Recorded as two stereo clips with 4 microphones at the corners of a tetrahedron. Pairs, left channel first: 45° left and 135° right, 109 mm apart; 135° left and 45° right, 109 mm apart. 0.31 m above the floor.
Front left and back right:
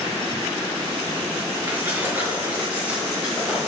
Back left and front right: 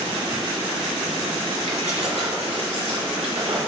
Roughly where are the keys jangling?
Ahead right.